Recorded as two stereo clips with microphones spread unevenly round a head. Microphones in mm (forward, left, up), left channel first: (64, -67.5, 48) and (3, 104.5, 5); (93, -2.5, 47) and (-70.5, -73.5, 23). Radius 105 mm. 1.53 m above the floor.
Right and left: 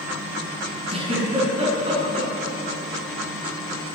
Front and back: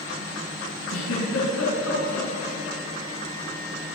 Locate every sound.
0.9 s a giggle: 50° left, 10 m